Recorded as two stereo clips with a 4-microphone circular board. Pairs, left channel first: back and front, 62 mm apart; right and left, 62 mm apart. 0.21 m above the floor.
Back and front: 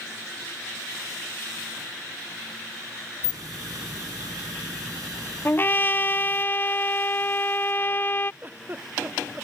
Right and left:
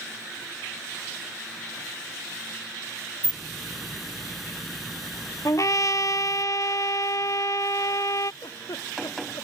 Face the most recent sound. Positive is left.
turn(degrees=-65)